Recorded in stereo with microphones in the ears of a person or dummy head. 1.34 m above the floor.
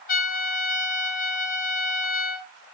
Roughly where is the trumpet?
Left.